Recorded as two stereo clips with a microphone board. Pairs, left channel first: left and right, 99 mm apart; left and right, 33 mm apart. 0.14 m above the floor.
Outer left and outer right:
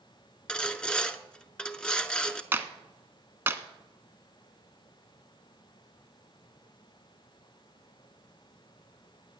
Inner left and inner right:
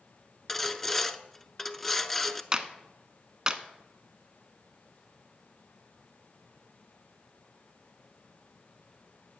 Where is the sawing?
10° left (ahead or behind), 0.6 m.